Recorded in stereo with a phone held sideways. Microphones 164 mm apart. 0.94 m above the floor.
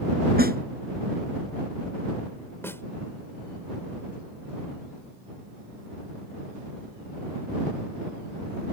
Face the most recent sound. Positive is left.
turn(degrees=15)  # may be behind; listen again after turning